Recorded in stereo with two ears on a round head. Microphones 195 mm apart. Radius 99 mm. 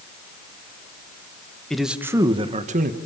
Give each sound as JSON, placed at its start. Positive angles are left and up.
{"t": 1.7, "sound": "a man speaking", "side_deg": 5, "distance_m": 1.5}